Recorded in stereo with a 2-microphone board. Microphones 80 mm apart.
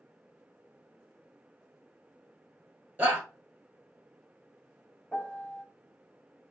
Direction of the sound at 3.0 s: 20° right (ahead or behind).